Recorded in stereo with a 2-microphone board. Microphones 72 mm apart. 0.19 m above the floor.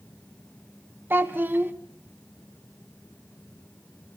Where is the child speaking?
30° right (ahead or behind), 1.0 m.